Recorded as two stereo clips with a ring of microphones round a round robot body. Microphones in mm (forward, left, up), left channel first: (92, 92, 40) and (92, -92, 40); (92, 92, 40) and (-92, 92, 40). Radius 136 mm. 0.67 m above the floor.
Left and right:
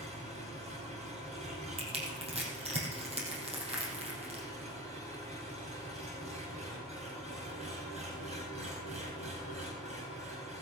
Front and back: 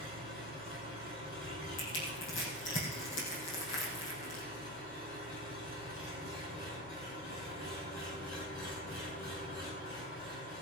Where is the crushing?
35° right, 4.5 m.